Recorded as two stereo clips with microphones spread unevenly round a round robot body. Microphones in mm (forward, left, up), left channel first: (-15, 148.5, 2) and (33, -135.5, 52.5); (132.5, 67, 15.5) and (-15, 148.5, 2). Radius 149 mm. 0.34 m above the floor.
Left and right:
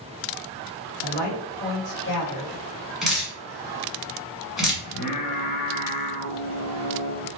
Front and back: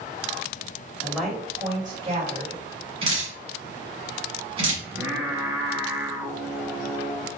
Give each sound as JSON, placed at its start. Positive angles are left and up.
{"t": 1.0, "sound": "a woman speaking", "azimuth_deg": 55, "distance_m": 1.8}
{"t": 3.0, "sound": "dripping", "azimuth_deg": 175, "distance_m": 1.4}
{"t": 4.8, "sound": "singing", "azimuth_deg": 75, "distance_m": 1.0}